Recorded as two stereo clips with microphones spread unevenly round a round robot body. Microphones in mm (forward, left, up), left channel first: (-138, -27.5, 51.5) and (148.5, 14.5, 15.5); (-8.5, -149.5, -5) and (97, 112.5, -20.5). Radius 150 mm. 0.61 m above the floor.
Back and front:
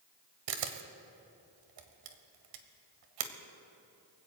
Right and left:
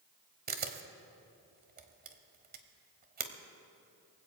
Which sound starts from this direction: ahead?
A camera shutter, at 0.5 s.